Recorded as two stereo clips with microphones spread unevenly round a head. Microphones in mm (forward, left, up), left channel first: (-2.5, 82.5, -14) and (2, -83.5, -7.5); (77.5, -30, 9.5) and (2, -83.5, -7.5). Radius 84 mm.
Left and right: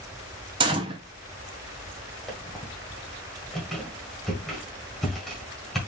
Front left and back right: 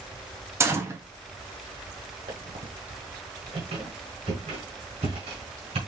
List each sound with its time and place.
0.6 s a gunshot: 140° right, 0.6 m
2.3 s a squeak: straight behind, 1.6 m